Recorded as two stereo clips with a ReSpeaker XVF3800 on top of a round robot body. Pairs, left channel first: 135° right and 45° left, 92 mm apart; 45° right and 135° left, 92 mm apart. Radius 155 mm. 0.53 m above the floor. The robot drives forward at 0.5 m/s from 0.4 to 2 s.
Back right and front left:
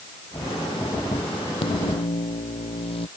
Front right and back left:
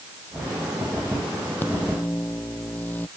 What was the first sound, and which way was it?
A microwave, 115° right.